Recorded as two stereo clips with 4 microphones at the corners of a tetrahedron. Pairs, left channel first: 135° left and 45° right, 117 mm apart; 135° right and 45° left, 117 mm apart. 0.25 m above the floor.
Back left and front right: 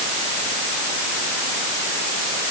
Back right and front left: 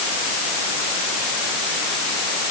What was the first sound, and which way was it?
Only background noise.